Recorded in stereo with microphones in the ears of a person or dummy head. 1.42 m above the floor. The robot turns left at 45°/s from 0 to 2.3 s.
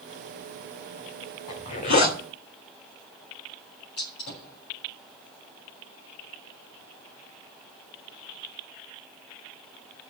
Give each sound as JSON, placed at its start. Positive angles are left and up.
{"t": 1.5, "sound": "a zipper", "azimuth_deg": 145, "distance_m": 2.5}
{"t": 4.0, "sound": "a gunshot", "side_deg": 65, "distance_m": 7.0}